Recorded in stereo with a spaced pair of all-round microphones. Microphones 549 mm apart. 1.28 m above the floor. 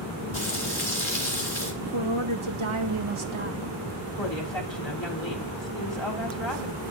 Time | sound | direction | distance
0.3 | frying | 60° left (ahead or behind) | 3 m
1.8 | a woman speaking | 60° right (ahead or behind) | 1.3 m
4.2 | a woman speaking | 55° left (ahead or behind) | 3 m